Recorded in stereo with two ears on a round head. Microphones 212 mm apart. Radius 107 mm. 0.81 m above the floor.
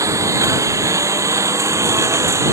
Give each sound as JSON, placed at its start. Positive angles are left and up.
{"t": 0.0, "sound": "a lawn mower", "side_deg": -15}